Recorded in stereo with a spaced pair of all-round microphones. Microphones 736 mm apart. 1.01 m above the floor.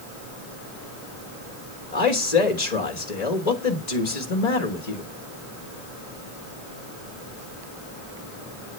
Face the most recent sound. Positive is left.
turn(degrees=60)  # may be behind; listen again after turning